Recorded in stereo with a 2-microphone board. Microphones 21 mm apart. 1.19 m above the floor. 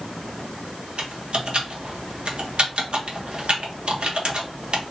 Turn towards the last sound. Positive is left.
turn(degrees=-60)  # may be behind; listen again after turning